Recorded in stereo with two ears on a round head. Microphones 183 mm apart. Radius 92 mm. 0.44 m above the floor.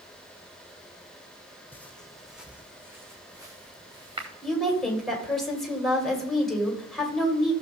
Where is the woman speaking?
Centre (ahead or behind), 2 m.